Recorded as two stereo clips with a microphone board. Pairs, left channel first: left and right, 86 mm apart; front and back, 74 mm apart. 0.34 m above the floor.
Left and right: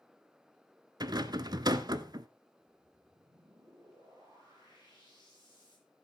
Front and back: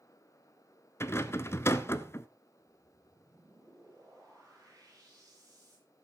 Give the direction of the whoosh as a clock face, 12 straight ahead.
4 o'clock.